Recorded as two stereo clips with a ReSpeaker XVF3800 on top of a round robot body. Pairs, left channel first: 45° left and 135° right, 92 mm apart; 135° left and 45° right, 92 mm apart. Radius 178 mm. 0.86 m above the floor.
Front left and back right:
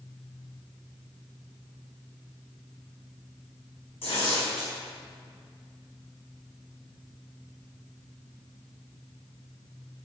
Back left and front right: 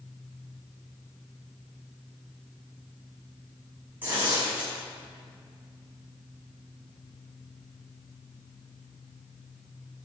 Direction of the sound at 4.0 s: 25° left.